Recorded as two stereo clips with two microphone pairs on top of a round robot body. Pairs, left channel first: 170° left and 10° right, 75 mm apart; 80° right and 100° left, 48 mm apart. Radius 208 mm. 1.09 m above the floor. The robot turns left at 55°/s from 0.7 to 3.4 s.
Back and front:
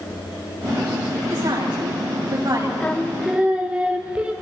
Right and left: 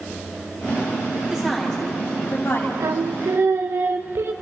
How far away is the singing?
About 0.6 m.